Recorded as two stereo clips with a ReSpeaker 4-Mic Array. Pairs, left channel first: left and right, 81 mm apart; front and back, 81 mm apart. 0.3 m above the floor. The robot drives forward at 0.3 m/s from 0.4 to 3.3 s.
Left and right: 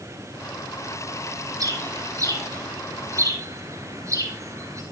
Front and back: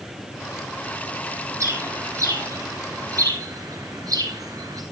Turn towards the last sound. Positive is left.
turn(degrees=-140)